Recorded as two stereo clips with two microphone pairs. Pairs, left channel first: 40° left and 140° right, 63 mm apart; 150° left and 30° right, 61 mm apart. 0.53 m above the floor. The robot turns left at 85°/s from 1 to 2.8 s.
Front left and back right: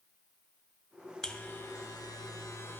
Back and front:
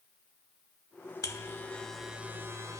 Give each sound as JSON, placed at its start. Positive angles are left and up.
{"t": 1.2, "sound": "a buzzer", "azimuth_deg": 120, "distance_m": 0.8}